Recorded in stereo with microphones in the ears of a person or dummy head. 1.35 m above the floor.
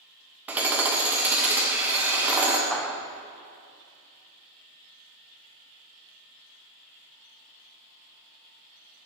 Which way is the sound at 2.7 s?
Centre (ahead or behind).